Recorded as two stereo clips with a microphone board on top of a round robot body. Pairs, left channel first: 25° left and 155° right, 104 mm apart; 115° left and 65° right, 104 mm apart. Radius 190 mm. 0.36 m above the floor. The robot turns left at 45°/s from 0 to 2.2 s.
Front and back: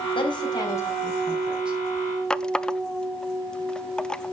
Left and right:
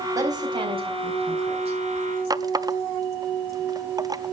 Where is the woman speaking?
10° right, 4 m; by 1.8 s 85° right, 4 m.